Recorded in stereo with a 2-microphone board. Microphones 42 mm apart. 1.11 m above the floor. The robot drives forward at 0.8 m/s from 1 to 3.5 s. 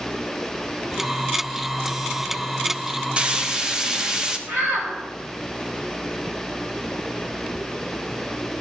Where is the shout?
70° right (ahead or behind), 4 m.